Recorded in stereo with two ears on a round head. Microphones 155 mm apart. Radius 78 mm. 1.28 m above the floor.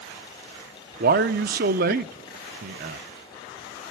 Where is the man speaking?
55° right (ahead or behind), 0.7 m.